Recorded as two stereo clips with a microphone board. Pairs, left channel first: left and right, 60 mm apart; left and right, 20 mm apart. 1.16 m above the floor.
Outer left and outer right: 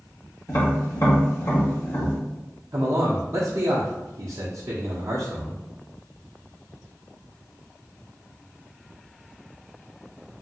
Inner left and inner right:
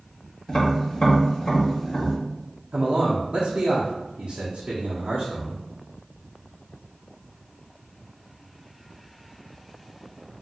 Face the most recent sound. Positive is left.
turn(degrees=-60)  # may be behind; listen again after turning